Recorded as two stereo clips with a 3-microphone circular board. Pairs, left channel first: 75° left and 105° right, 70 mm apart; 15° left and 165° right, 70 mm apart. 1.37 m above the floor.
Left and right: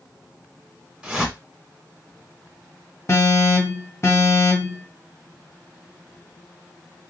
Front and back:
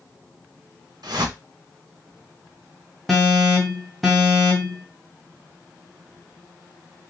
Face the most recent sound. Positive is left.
turn(degrees=100)